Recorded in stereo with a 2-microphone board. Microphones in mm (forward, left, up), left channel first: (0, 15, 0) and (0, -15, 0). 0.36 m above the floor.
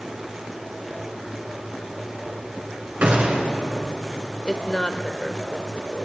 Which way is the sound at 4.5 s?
20° left (ahead or behind).